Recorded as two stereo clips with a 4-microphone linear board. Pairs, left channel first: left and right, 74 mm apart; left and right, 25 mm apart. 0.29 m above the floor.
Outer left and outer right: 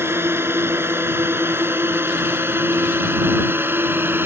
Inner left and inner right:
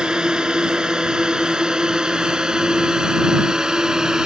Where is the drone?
30° right (ahead or behind).